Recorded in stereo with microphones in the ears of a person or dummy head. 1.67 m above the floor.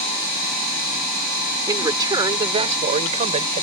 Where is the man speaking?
15° right (ahead or behind); by 3.6 s 35° right (ahead or behind).